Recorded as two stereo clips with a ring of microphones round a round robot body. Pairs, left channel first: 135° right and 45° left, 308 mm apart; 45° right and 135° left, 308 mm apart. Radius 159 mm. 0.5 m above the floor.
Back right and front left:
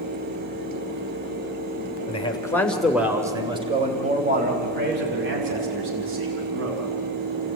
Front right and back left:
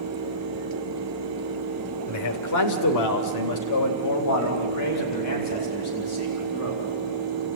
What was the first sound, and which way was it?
A man speaking, 65° right.